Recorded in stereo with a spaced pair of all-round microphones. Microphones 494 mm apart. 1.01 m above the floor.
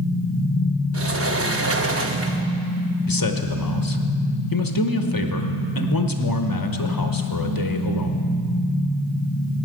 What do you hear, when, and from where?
0.9 s a sliding door: 30° right (ahead or behind), 0.6 m
3.1 s a man speaking: 45° left (ahead or behind), 0.8 m